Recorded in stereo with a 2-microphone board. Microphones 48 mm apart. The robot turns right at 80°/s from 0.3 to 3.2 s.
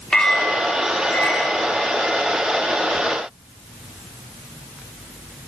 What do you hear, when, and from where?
0.1 s a clink: 15° left, 3 m; by 1.6 s 120° left, 3 m